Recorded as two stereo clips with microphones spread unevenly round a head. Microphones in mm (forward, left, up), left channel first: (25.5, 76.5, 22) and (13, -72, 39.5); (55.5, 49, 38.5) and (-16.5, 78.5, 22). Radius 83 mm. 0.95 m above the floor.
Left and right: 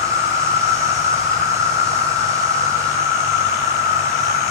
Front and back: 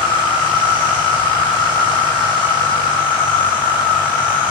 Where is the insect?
25° right, 7.5 m.